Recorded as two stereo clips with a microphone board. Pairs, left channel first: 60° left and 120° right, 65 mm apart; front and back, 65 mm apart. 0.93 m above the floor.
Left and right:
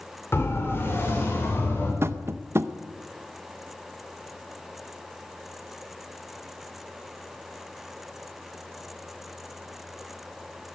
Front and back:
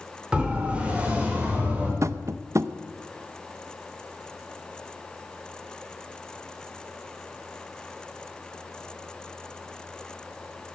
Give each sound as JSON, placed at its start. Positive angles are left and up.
{"t": 0.3, "sound": "a siren", "azimuth_deg": 110, "distance_m": 3.0}
{"t": 2.0, "sound": "tapping", "azimuth_deg": -160, "distance_m": 0.6}